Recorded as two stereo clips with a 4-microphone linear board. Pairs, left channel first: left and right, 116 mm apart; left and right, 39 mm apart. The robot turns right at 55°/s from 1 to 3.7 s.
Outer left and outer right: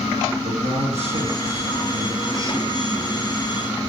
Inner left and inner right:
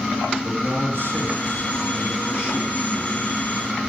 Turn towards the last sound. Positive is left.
turn(degrees=45)